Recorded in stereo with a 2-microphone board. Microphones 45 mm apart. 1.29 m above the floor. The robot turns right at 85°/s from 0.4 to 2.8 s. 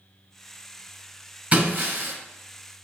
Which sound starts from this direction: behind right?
Breaking glass, at 1.5 s.